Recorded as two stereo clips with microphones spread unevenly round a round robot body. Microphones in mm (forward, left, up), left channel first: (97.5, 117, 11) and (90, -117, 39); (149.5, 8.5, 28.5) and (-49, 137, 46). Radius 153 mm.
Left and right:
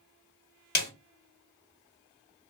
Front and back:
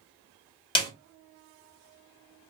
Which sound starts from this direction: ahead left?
A snare drum, at 0.8 s.